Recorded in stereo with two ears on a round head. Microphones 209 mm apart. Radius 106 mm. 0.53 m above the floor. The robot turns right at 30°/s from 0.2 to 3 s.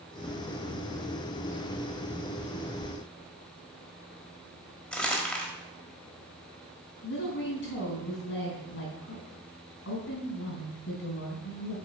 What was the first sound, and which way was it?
Crumpling, 5° left (ahead or behind).